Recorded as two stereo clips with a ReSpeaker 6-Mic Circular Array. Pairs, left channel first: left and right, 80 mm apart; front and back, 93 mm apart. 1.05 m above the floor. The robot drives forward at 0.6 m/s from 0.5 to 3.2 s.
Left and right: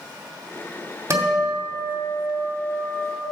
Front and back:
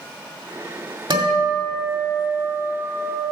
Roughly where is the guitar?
Behind right.